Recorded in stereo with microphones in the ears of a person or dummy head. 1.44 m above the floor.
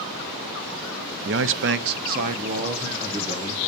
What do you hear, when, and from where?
1.2 s a man speaking: 60° right (ahead or behind), 0.7 m; by 3.7 s 30° right (ahead or behind), 1.9 m